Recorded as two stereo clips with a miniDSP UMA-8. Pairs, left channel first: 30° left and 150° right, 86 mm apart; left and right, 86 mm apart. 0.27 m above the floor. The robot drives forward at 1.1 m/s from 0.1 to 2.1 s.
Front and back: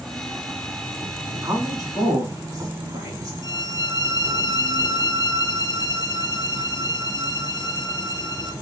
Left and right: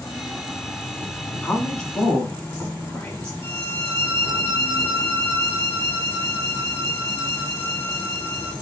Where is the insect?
120° left, 2 m; by 8.6 s 160° left, 3.5 m.